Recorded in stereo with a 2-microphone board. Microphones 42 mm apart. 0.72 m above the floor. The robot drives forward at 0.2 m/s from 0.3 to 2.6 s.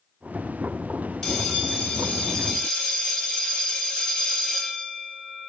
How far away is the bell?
About 1.4 m.